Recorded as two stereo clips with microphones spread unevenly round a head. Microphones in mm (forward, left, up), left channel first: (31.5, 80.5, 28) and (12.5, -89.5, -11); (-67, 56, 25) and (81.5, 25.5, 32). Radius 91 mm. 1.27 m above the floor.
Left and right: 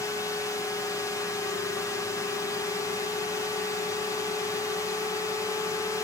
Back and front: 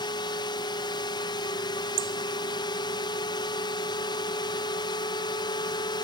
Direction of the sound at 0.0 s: 165° left.